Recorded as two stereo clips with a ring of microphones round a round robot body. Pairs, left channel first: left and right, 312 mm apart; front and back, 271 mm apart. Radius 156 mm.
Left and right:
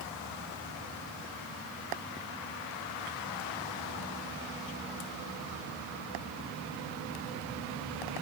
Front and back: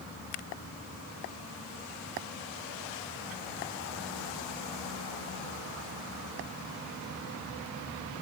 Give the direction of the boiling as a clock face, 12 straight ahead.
I don't hear boiling.